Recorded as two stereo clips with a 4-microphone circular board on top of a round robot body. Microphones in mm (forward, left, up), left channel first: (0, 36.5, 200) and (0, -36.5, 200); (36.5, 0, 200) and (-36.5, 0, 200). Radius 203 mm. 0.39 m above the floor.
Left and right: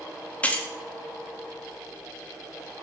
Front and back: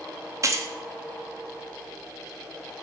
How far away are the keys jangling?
About 0.5 m.